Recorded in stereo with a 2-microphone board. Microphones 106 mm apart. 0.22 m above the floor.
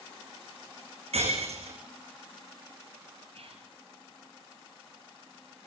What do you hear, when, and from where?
1.1 s breaking glass: 75° right (ahead or behind), 7.5 m
3.3 s whispering: 65° right (ahead or behind), 5 m